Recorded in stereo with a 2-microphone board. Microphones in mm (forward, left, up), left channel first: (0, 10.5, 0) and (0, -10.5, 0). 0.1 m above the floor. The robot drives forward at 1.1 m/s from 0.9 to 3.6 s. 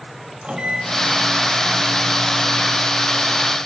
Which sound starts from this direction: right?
A microwave, at 0.4 s.